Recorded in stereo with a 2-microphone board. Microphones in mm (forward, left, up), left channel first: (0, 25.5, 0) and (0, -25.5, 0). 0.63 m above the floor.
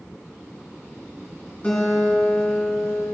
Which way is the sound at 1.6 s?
20° left (ahead or behind).